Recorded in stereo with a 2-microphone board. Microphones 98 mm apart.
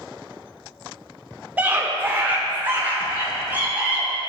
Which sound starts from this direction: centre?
A scream, at 1.6 s.